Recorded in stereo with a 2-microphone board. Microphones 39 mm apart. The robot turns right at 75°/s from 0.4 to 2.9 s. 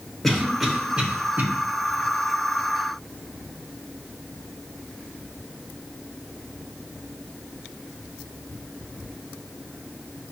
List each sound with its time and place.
0.2 s a cough: 10° left (ahead or behind), 1.1 m; by 1.4 s 50° right (ahead or behind), 1.1 m